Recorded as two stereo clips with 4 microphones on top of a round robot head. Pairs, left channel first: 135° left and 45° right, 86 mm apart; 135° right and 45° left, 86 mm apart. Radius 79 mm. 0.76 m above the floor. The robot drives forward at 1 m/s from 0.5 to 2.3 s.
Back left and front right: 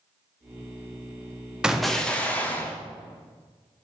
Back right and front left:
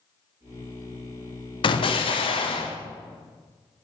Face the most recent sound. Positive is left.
turn(degrees=-150)